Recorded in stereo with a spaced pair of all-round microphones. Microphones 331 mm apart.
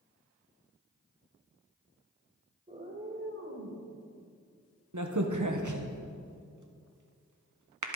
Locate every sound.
2.7 s a cat meowing: 20° right (ahead or behind), 1.8 m; by 3.9 s 55° right (ahead or behind), 2.5 m
4.9 s a crack: 70° right (ahead or behind), 1.1 m